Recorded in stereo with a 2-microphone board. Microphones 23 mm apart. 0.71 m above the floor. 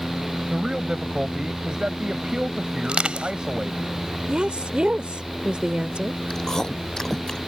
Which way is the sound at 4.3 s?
60° right (ahead or behind).